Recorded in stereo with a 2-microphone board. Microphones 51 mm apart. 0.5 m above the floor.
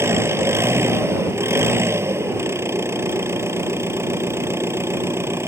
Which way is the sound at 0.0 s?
70° right (ahead or behind).